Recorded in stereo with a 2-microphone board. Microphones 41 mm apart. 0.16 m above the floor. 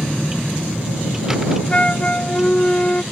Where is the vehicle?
10° right (ahead or behind).